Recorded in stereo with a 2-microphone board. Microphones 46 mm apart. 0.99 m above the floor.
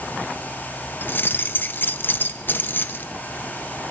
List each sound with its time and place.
1.0 s keys jangling: 45° left (ahead or behind), 0.6 m